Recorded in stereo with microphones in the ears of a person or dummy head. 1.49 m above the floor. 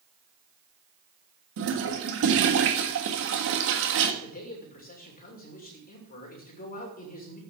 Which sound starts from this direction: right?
A toilet flushing, at 1.6 s.